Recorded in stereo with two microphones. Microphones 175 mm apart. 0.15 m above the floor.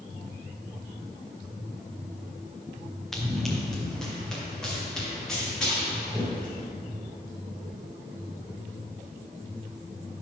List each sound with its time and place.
3.1 s running footsteps: centre (ahead or behind), 3 m; by 6.6 s 5° left (ahead or behind), 8.5 m